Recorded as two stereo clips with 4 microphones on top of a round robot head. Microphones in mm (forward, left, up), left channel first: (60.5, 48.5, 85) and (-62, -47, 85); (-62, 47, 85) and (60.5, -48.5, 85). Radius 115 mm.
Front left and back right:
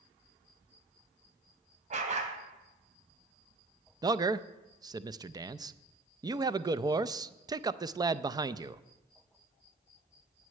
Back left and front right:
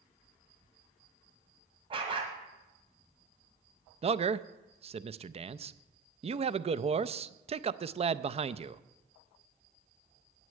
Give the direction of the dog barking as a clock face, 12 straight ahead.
3 o'clock.